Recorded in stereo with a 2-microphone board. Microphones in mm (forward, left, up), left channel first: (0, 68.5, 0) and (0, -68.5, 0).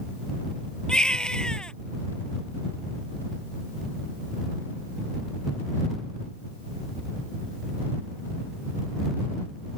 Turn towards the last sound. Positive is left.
turn(degrees=5)  # may be behind; listen again after turning